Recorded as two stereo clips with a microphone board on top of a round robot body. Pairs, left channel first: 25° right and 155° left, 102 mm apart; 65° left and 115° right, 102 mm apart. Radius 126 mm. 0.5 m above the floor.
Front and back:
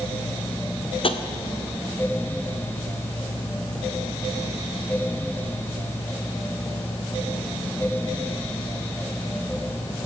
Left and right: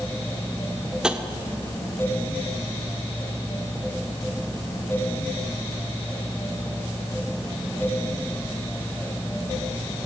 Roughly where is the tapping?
Ahead right.